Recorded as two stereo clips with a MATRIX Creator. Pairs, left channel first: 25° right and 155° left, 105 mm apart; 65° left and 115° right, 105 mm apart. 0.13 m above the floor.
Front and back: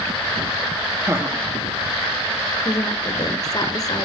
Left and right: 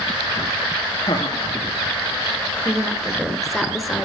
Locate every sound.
1.1 s laughter: 100° left, 1.9 m
2.6 s a woman speaking: 25° right, 1.8 m